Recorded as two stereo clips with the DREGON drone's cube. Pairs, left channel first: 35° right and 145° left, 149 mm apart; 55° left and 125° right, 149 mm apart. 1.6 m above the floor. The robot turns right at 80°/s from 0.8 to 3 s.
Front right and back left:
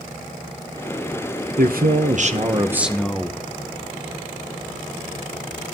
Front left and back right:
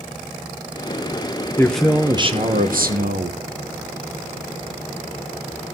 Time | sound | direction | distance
1.6 | a man speaking | 130° left | 1.1 m